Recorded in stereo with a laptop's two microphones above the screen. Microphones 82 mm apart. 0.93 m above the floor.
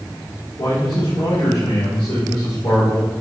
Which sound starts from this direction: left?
A man speaking, at 0.6 s.